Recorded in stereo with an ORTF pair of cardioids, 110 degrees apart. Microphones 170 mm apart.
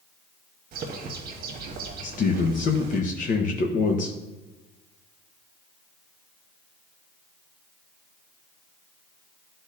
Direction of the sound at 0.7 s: 60° right.